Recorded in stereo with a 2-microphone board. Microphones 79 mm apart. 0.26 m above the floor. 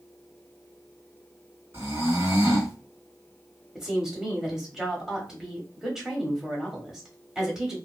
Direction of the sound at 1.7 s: 35° right (ahead or behind).